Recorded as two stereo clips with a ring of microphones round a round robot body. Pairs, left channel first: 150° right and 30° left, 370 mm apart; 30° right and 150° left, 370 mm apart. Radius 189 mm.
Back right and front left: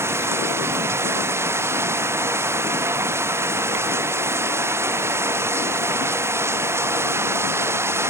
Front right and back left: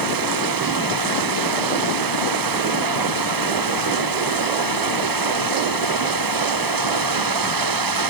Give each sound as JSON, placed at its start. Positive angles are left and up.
{"t": 0.0, "sound": "running water", "azimuth_deg": 115}